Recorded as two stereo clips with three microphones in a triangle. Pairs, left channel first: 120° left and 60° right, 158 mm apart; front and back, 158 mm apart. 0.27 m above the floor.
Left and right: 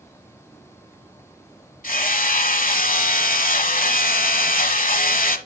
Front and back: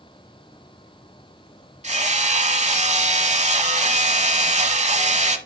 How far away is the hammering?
About 1.0 m.